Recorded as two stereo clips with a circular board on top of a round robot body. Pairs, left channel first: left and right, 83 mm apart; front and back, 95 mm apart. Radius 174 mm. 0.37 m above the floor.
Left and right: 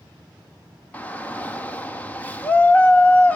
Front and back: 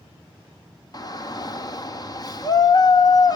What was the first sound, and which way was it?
A shout, 25° left.